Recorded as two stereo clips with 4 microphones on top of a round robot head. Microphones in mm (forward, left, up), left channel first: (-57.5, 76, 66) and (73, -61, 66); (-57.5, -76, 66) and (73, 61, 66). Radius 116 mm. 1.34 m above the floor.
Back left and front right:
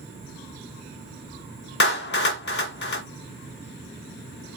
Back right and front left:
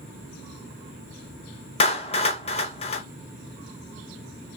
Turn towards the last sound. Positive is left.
turn(degrees=170)